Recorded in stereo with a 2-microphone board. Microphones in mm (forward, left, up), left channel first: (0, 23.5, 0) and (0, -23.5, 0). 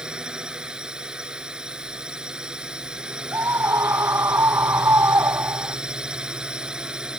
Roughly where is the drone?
Centre.